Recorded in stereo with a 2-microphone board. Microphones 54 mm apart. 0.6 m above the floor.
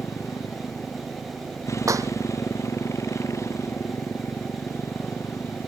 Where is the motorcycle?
75° left (ahead or behind); by 5.7 s 60° left (ahead or behind).